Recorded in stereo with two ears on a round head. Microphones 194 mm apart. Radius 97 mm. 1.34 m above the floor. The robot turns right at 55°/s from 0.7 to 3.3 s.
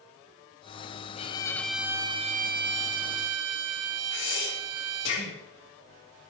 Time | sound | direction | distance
1.2 | a violin | 150° left | 0.8 m
4.1 | breathing | 65° left (ahead or behind) | 3 m